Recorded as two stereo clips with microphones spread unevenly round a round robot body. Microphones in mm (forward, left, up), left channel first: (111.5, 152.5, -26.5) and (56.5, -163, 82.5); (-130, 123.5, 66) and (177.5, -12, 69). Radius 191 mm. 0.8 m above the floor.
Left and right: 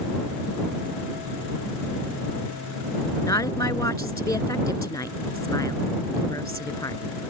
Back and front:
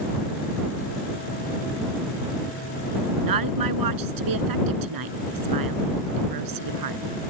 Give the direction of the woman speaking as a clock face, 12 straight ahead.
12 o'clock.